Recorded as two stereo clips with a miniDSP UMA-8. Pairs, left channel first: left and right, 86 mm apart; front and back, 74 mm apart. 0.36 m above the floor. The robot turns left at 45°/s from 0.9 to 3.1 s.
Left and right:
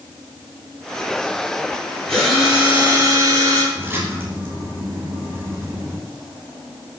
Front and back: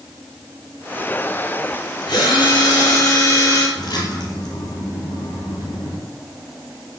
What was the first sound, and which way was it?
A drill, 5° left.